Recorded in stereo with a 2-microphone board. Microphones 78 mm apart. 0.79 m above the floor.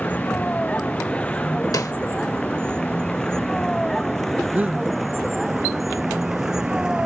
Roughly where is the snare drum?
Left.